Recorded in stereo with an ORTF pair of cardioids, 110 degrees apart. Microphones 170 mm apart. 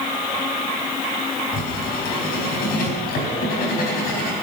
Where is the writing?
60° left, 4.5 m.